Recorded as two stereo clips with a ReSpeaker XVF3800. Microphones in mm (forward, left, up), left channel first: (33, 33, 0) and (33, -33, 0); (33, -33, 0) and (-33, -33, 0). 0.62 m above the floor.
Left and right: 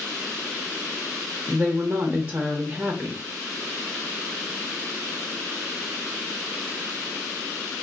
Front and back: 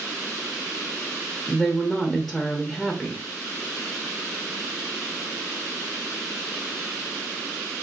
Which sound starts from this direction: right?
A woman speaking, at 1.5 s.